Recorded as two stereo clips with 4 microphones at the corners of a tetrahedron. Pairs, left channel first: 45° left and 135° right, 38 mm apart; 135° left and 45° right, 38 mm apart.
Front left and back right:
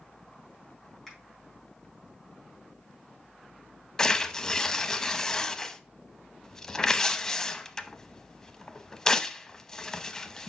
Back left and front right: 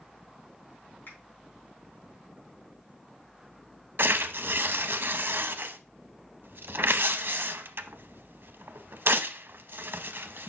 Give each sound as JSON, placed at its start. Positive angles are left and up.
{"t": 1.1, "sound": "a finger snap", "azimuth_deg": 130, "distance_m": 4.0}
{"t": 4.0, "sound": "tearing paper", "azimuth_deg": -30, "distance_m": 0.5}